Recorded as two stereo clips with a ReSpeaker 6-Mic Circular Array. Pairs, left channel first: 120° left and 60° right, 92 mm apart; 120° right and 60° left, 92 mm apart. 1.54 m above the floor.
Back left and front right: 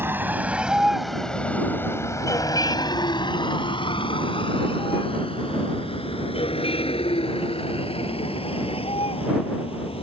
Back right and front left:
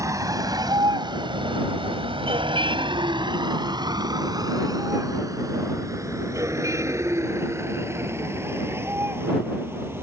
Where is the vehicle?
5° left; by 10.0 s 125° left.